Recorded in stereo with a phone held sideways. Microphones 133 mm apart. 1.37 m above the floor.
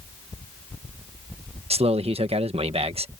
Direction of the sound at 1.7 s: 45° right (ahead or behind).